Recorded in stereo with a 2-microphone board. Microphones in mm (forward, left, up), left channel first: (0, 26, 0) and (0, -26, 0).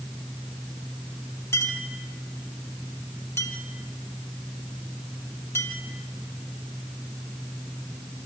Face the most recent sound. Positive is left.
turn(degrees=60)  # may be behind; listen again after turning